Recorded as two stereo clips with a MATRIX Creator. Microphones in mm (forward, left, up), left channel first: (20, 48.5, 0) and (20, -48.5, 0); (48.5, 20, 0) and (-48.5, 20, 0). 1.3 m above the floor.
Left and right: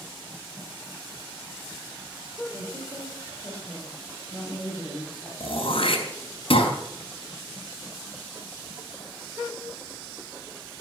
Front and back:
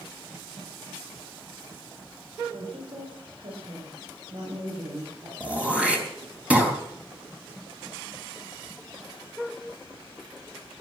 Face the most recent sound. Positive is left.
turn(degrees=105)